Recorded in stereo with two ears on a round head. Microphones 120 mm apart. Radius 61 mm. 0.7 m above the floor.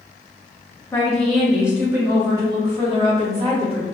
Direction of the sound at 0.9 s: 15° left (ahead or behind).